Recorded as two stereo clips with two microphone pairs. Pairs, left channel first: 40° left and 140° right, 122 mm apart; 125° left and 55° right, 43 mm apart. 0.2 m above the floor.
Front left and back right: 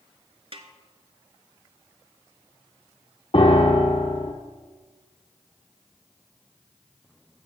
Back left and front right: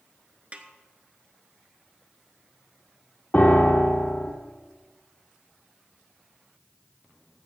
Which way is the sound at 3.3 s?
75° left.